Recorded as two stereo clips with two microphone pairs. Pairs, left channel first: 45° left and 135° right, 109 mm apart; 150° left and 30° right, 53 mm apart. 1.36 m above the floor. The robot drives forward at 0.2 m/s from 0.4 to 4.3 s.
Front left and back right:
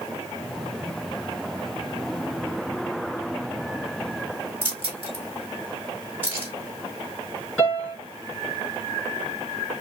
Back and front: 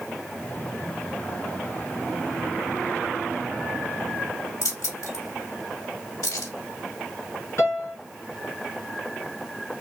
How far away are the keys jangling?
About 3 m.